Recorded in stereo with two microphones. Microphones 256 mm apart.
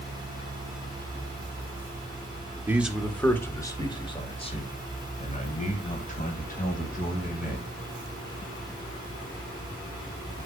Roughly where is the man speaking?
Centre.